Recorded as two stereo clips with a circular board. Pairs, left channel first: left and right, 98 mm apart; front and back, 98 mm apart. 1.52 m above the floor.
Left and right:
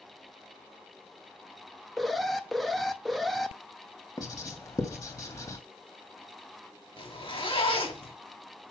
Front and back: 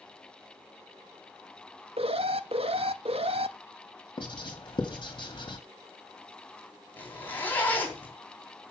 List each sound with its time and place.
2.0 s an alarm: straight behind, 0.7 m
4.2 s writing: 35° left, 1.9 m
7.0 s a zipper: 70° left, 3 m